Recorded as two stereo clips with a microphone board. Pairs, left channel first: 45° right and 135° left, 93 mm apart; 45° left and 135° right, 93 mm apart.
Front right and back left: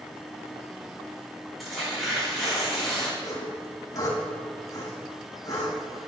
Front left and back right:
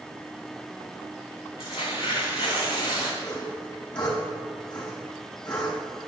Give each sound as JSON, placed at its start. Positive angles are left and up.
{"t": 1.6, "sound": "tearing paper", "azimuth_deg": 45, "distance_m": 4.5}
{"t": 3.2, "sound": "sawing", "azimuth_deg": 5, "distance_m": 4.5}